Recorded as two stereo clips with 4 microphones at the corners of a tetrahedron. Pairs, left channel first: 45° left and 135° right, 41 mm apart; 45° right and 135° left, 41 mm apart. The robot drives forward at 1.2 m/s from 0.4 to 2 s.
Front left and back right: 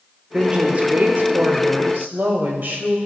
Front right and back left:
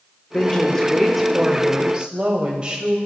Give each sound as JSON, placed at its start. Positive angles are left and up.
{"t": 0.3, "sound": "a woman speaking", "azimuth_deg": -80, "distance_m": 1.0}